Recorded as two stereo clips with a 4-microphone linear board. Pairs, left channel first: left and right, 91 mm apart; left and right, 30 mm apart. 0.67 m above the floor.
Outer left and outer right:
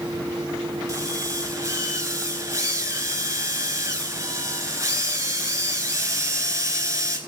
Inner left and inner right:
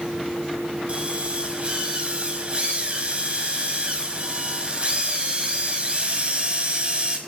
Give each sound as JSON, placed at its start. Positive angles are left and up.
{"t": 0.9, "sound": "a drill", "side_deg": -35, "distance_m": 4.5}